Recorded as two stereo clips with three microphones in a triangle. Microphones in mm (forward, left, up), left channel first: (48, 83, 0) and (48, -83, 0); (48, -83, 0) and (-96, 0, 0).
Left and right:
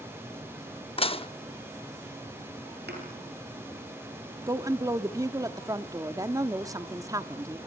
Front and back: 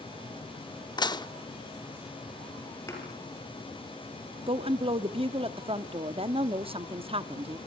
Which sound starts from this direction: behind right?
A woman speaking, at 4.5 s.